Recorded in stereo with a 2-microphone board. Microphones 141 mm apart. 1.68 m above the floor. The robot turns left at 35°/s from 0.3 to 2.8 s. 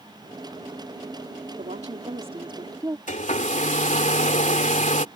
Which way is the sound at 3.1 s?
60° left (ahead or behind).